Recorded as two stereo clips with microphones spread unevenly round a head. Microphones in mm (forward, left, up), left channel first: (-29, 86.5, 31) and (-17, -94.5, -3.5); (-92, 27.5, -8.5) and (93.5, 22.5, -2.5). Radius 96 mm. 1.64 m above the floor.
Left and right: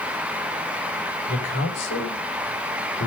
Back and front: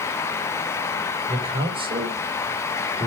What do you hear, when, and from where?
1.3 s a man speaking: 60° left, 6.5 m